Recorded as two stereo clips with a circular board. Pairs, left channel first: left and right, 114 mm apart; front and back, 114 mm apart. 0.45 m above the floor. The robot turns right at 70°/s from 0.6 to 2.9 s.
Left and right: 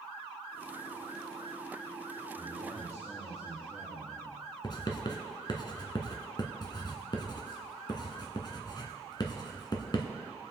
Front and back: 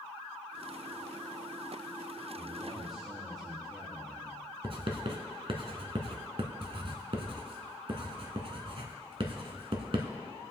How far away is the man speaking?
About 5 m.